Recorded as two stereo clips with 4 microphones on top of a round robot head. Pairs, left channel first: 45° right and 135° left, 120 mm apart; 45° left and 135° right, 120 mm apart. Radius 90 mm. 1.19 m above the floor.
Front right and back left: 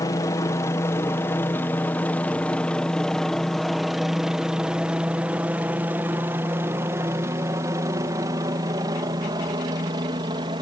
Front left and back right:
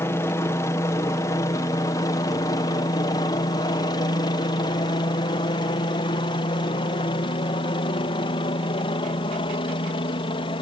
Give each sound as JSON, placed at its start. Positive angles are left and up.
{"t": 0.0, "sound": "a helicopter", "azimuth_deg": -5}